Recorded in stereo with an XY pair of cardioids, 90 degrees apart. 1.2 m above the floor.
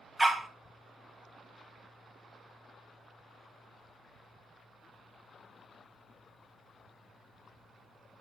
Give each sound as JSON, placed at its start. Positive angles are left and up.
{"t": 0.2, "sound": "a dog barking", "azimuth_deg": -10, "distance_m": 2.0}